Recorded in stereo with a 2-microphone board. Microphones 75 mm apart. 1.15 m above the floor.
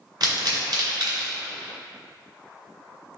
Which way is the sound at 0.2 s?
75° right (ahead or behind).